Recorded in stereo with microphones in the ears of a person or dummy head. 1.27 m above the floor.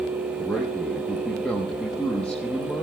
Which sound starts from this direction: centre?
A man speaking, at 0.4 s.